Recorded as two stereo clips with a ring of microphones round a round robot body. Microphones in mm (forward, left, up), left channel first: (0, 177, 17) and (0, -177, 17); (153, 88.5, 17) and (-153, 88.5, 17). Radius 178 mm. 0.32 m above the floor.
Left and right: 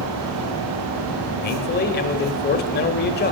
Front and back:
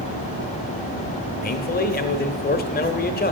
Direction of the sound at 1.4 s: 40° left.